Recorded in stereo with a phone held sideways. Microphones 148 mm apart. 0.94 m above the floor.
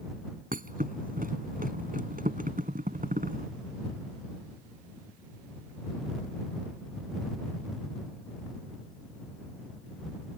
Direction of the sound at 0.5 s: 70° right (ahead or behind).